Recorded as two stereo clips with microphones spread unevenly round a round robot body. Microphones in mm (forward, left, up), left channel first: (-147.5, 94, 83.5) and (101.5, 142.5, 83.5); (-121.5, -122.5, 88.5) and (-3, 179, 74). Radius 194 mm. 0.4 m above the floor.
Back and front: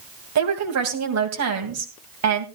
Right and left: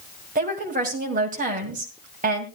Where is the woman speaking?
5° left, 2.5 m.